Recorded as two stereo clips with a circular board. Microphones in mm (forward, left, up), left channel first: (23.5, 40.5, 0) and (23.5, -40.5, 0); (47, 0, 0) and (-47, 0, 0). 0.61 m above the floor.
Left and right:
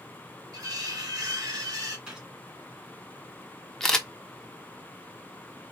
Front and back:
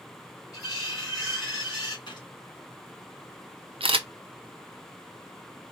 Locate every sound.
0.5 s cutlery clinking: 50° right, 2.5 m
2.1 s a gunshot: 15° right, 1.9 m
3.8 s a camera shutter: 175° left, 0.7 m